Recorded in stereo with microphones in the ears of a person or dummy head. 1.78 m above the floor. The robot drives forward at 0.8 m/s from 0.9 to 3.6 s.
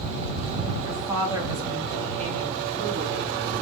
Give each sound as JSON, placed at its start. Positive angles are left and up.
{"t": 0.8, "sound": "a woman speaking", "side_deg": -20, "distance_m": 2.0}